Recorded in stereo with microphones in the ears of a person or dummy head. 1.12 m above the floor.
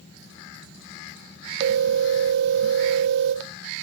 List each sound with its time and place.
1.6 s a phone ringing: 65° right (ahead or behind), 1.1 m